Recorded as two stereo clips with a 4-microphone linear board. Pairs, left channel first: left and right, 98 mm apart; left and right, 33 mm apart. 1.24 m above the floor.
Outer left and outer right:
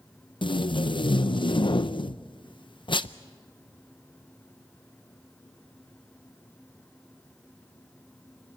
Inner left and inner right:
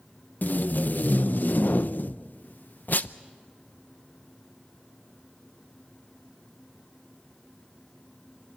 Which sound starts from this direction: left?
Tape being pulled, at 0.4 s.